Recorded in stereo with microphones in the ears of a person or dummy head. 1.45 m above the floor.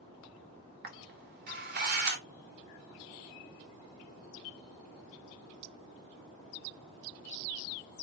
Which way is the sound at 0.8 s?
50° right (ahead or behind).